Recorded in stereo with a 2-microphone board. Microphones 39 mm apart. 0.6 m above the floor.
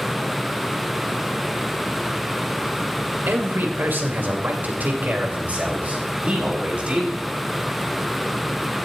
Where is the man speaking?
60° right (ahead or behind), 2 m; by 7.2 s 30° right (ahead or behind), 3.5 m.